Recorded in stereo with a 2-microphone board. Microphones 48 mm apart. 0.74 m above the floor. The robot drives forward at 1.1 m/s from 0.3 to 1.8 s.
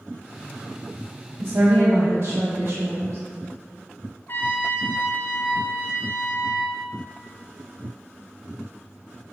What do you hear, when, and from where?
1.4 s a woman speaking: 70° right (ahead or behind), 1.2 m; by 3.2 s 65° right (ahead or behind), 1.2 m
4.3 s a trumpet: 50° left (ahead or behind), 0.8 m